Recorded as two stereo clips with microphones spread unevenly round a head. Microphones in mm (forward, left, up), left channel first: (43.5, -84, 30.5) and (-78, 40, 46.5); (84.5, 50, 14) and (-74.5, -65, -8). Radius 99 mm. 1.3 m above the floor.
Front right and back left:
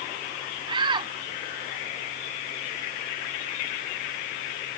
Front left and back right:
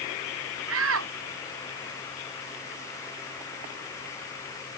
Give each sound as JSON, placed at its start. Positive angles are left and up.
{"t": 0.7, "sound": "a shout", "azimuth_deg": -165}